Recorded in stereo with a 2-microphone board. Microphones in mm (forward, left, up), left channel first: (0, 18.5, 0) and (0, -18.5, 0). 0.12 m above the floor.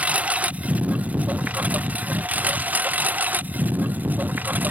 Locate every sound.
0.0 s a lawn mower: 35° right (ahead or behind); by 4.7 s 50° right (ahead or behind)